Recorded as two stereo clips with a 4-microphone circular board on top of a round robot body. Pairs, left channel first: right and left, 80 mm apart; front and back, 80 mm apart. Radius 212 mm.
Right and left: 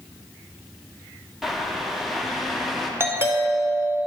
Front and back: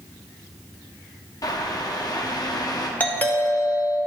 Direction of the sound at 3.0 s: 55° left.